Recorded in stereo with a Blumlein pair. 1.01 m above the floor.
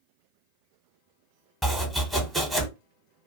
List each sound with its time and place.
1.6 s chopping: 10° right, 0.8 m